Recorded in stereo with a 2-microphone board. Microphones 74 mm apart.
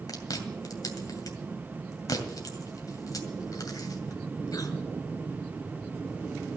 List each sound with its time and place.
0.1 s chewing: 55° left (ahead or behind), 2 m